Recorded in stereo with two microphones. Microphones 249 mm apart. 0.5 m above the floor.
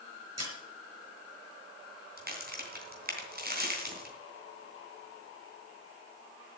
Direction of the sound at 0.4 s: 75° right (ahead or behind).